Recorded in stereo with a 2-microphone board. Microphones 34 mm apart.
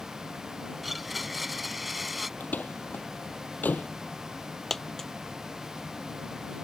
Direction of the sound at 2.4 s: 60° left (ahead or behind).